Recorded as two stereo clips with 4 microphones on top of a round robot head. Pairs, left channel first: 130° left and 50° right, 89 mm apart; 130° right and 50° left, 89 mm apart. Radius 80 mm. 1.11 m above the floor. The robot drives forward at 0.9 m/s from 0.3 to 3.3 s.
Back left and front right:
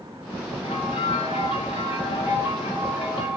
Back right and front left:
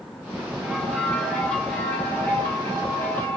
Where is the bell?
140° left, 1.6 m; by 3.4 s 165° left, 4 m.